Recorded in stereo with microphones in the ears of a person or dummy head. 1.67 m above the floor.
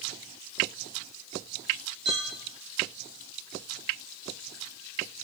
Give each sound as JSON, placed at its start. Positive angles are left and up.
{"t": 2.0, "sound": "a clink", "side_deg": -25, "distance_m": 1.2}